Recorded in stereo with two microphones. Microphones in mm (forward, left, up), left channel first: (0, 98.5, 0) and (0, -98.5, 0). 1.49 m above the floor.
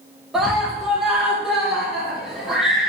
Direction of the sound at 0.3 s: Centre (ahead or behind).